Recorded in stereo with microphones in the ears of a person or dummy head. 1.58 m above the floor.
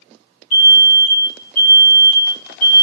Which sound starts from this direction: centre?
An alarm, at 0.5 s.